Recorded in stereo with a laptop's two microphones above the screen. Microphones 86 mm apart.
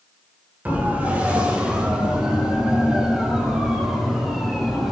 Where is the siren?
20° right (ahead or behind), 2.5 m; by 4.9 s centre (ahead or behind), 5 m.